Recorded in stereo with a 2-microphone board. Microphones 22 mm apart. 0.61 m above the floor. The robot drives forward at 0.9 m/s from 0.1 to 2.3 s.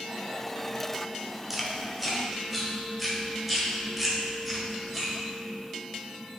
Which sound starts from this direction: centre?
Chewing, at 1.5 s.